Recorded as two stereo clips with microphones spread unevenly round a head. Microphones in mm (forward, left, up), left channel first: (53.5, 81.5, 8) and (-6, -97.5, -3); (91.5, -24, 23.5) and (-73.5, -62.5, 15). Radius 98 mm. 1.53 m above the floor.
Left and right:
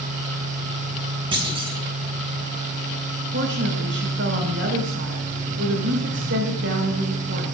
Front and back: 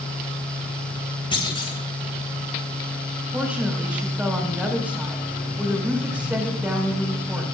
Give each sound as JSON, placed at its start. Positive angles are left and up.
{"t": 1.3, "sound": "a clunk", "azimuth_deg": -45, "distance_m": 3.5}
{"t": 3.3, "sound": "a woman speaking", "azimuth_deg": -85, "distance_m": 5.5}